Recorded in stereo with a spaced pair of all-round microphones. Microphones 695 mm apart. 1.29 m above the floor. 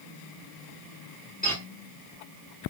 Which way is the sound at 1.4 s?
10° left (ahead or behind).